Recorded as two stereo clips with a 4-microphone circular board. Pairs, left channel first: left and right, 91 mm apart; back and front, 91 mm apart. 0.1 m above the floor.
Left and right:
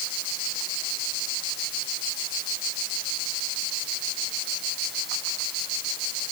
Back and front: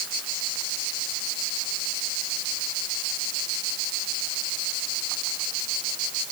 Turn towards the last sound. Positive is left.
No sound to turn to.